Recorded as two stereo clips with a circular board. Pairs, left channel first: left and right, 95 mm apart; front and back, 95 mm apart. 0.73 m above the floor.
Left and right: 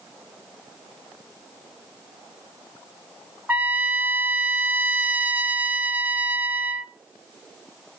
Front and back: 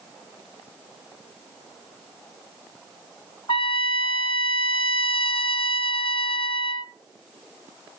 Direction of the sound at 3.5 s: 20° right.